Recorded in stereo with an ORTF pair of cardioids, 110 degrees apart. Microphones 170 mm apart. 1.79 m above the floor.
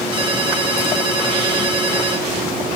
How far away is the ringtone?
About 3.5 m.